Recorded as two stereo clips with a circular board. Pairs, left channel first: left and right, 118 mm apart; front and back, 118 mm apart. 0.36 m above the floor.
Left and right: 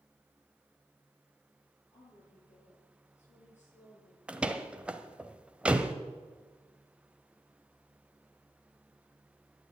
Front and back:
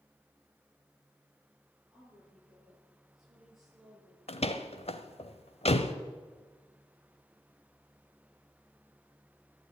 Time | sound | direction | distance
1.9 | a woman speaking | 90° left | 8.5 m
4.3 | a door slam | 10° right | 1.0 m